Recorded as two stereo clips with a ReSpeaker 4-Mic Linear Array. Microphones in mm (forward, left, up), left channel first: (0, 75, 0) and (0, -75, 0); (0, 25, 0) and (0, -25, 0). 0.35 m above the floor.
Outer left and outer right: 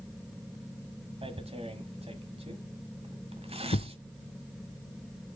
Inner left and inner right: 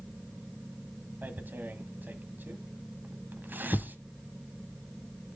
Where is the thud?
85° left, 0.7 m.